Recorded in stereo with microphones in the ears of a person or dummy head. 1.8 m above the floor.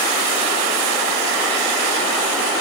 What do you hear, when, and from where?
Only background noise.